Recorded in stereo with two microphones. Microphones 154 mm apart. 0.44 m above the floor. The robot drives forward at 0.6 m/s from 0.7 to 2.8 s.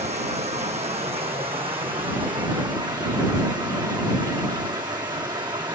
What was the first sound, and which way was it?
Running water, 45° right (ahead or behind).